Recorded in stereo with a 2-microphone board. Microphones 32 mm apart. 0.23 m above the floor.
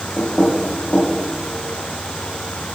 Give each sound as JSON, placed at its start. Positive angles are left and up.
{"t": 0.2, "sound": "knocking", "side_deg": 50, "distance_m": 4.0}